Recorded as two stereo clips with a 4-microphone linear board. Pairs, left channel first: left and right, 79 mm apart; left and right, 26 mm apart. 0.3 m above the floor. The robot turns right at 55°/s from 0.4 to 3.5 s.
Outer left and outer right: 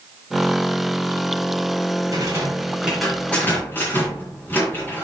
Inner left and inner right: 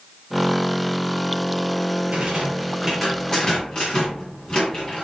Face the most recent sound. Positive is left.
turn(degrees=25)